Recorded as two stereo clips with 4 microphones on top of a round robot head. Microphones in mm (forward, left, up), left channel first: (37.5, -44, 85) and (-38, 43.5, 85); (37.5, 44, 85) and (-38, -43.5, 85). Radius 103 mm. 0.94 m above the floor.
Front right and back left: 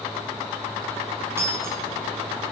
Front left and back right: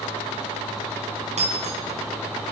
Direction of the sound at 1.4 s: 160° right.